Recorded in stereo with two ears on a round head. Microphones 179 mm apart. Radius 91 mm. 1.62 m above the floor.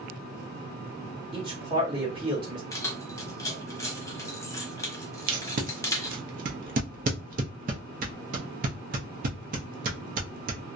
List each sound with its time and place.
1.3 s a man speaking: 25° right (ahead or behind), 1.2 m
2.7 s keys jangling: 15° left (ahead or behind), 0.6 m
5.3 s tape being pulled: 45° right (ahead or behind), 0.5 m